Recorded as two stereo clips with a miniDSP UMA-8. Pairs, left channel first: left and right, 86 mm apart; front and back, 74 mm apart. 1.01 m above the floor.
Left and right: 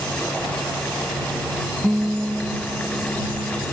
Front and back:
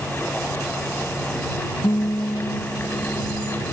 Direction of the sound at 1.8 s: 10° right.